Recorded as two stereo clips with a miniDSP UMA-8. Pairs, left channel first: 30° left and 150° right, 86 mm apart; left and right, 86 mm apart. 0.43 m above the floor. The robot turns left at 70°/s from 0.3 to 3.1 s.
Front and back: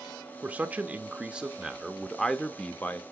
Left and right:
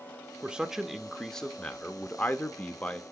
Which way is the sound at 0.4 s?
135° right.